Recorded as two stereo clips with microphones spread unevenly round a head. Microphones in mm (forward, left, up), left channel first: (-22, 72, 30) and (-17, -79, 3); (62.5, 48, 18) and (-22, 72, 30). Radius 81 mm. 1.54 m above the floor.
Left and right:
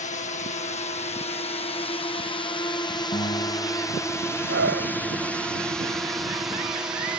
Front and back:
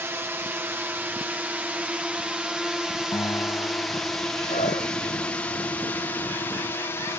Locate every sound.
0.0 s a drone: 105° left; by 7.2 s 30° right
3.1 s a guitar: 35° left
4.5 s a scream: 65° right